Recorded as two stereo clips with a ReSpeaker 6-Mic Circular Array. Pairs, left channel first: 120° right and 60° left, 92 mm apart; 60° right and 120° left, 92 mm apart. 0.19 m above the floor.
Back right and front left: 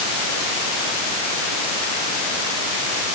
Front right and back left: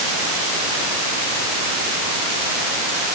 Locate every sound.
Only background noise.